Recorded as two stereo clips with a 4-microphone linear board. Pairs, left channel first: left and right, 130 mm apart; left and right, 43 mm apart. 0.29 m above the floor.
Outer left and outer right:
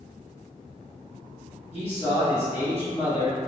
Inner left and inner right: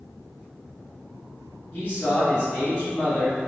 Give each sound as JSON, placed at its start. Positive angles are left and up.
{"t": 1.7, "sound": "a man speaking", "side_deg": 50, "distance_m": 1.8}